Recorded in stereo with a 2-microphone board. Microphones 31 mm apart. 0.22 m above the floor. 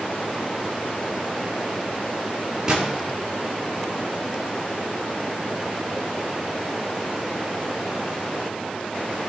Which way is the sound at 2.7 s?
20° right (ahead or behind).